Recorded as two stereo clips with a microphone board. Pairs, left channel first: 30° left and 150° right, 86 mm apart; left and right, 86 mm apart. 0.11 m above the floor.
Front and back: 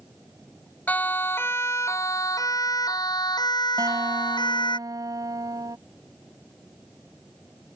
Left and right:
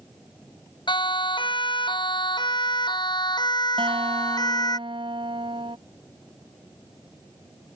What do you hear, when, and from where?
0.9 s a siren: 100° left; by 4.8 s 50° left
3.8 s a guitar: 105° right